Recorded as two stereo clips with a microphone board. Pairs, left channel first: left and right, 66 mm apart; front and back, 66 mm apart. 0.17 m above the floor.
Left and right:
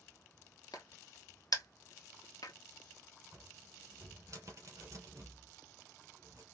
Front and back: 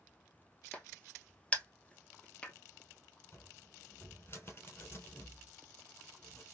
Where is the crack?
75° left, 1.1 m.